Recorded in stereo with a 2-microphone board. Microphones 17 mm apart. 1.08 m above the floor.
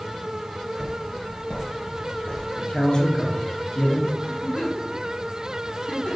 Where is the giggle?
80° left, 2.5 m.